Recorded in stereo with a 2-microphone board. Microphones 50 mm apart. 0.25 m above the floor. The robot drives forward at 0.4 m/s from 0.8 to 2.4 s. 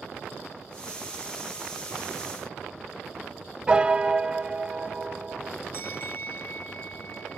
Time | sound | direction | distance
3.7 | a piano | 20° right (ahead or behind) | 0.7 m
5.7 | a bell | 40° left (ahead or behind) | 0.9 m